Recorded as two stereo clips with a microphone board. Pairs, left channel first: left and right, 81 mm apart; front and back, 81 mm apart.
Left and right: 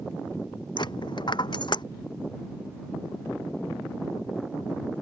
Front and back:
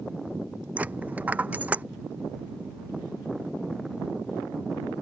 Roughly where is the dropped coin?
Left.